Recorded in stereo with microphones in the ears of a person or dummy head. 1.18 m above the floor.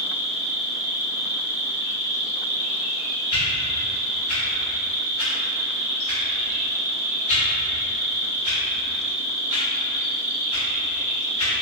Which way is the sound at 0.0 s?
45° right (ahead or behind).